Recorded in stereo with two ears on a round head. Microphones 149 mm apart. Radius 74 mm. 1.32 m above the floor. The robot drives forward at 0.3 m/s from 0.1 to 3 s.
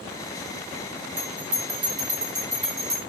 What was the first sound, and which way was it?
A bell, 50° right (ahead or behind).